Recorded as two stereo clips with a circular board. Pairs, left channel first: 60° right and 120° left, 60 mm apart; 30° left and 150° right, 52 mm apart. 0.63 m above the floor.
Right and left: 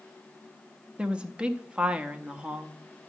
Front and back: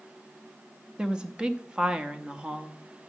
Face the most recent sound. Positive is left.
turn(degrees=165)